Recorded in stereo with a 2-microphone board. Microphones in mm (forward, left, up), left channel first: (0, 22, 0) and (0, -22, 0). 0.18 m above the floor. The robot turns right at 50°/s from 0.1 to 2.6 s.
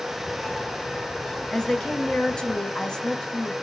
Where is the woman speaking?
15° left (ahead or behind), 1.0 m; by 3.5 s 20° left (ahead or behind), 1.0 m.